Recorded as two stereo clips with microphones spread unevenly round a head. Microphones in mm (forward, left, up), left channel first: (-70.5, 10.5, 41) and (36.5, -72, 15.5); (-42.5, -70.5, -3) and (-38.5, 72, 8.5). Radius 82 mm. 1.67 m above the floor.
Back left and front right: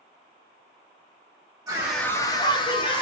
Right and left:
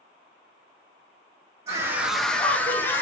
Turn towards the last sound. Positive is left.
turn(degrees=-170)